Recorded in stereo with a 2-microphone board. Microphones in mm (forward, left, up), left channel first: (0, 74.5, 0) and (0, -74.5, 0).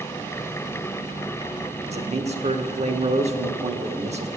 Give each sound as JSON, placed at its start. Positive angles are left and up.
{"t": 1.9, "sound": "a man speaking", "side_deg": -45, "distance_m": 0.9}